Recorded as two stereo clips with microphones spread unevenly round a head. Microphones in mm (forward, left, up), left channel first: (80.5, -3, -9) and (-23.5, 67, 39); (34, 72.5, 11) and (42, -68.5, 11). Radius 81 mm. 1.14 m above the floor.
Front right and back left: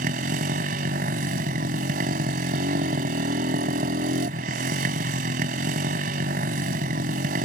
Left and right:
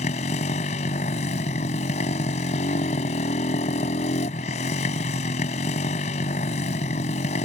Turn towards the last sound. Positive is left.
turn(degrees=145)